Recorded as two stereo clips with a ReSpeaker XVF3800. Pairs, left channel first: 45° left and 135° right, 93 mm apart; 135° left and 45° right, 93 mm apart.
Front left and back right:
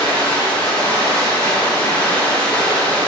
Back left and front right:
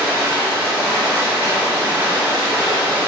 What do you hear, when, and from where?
0.0 s running water: 15° right, 1.0 m